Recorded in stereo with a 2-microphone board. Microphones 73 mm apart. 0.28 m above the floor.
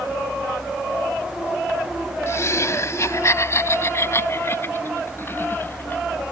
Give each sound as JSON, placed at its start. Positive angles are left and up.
{"t": 2.3, "sound": "laughter", "side_deg": 45}